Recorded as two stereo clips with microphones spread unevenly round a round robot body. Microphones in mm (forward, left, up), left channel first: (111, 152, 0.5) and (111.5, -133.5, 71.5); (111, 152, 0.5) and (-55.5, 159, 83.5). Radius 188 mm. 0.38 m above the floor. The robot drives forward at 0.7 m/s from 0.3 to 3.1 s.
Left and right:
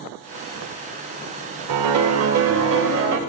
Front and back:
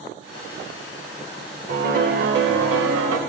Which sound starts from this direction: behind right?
A piano, at 1.7 s.